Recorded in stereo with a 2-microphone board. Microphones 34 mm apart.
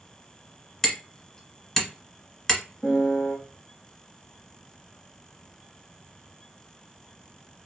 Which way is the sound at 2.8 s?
45° left (ahead or behind).